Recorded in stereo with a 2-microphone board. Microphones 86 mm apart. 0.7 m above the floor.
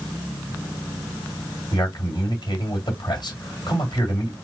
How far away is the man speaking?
About 1.9 m.